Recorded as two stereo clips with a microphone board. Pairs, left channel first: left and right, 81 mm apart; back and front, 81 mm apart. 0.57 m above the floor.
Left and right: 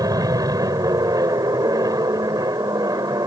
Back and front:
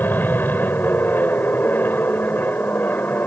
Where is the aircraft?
120° right.